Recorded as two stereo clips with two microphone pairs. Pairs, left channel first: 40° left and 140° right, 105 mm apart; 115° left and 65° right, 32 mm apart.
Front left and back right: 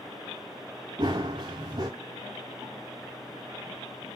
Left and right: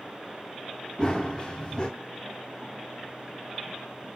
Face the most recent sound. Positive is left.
turn(degrees=180)